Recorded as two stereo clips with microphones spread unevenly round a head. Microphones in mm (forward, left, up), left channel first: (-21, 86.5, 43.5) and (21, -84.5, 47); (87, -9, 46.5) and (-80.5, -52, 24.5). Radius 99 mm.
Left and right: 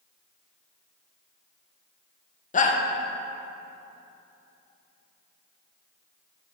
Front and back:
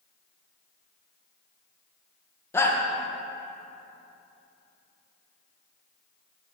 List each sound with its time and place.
2.5 s a shout: 95° left, 0.9 m